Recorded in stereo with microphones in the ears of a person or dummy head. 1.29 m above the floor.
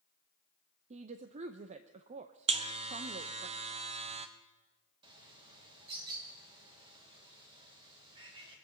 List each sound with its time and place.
0.9 s a woman speaking: 35° right (ahead or behind), 0.6 m
2.5 s a buzzer: 35° right (ahead or behind), 0.7 m
5.0 s a bird: 25° right (ahead or behind), 2.5 m